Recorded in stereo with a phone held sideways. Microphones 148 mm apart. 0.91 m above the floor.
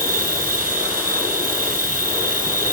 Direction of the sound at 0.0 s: 80° right.